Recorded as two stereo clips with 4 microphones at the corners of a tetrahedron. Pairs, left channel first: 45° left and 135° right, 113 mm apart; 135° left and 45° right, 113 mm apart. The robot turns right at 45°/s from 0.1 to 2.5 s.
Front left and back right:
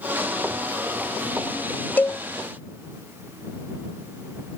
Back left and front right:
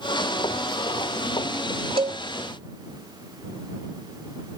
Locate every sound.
2.0 s a cowbell: 25° right; by 2.2 s 15° right